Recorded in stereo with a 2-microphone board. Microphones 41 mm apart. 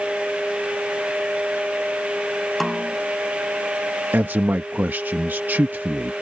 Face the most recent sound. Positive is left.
turn(degrees=-55)  # may be behind; listen again after turning